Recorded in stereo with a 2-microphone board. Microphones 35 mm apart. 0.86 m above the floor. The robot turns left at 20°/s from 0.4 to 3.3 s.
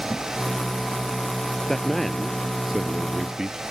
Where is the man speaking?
10° left; by 3.6 s 20° right.